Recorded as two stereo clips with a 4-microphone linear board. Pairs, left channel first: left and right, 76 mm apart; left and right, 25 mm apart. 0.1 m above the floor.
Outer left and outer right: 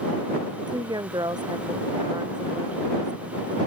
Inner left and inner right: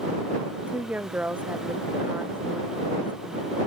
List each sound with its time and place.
0.6 s a woman speaking: 65° right (ahead or behind)